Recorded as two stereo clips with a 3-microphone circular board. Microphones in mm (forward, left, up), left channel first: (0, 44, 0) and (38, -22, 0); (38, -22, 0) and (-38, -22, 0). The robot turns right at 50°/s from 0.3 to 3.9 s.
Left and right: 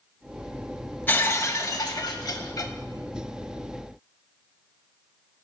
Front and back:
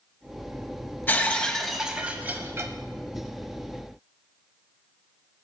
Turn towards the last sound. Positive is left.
turn(degrees=-160)